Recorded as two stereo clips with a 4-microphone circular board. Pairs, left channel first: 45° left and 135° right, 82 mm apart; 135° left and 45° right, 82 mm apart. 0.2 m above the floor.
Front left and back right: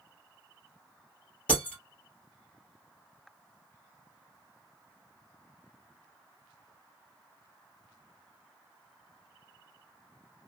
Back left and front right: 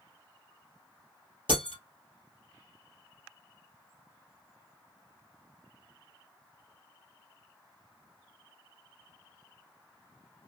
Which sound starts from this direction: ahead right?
Breaking glass, at 1.5 s.